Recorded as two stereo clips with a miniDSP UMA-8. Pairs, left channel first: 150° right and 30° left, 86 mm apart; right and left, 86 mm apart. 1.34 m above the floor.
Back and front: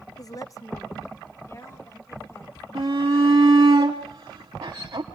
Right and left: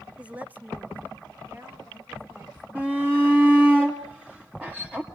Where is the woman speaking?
165° left, 0.5 m; by 2.6 s 155° left, 4.5 m.